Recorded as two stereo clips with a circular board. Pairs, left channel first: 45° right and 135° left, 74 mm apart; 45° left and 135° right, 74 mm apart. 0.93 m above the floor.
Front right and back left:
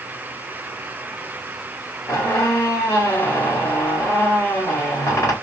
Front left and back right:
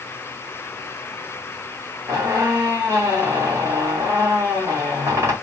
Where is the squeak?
90° right, 1.8 m.